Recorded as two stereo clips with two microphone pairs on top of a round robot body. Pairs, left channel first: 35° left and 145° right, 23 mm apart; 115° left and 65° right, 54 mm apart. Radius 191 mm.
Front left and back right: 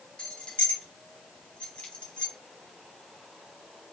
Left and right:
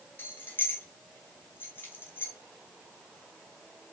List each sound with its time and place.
0.2 s keys jangling: 75° left, 1.3 m